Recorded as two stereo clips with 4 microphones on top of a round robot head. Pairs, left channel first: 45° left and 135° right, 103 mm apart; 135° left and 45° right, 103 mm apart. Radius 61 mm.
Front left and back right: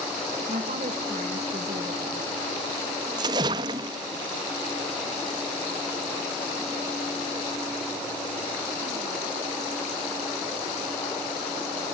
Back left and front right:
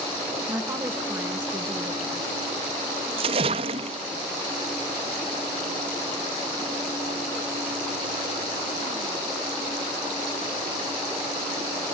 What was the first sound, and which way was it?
A woman speaking, 115° right.